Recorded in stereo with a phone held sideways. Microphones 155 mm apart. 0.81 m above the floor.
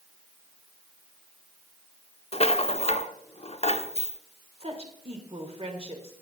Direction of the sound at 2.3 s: 40° left (ahead or behind).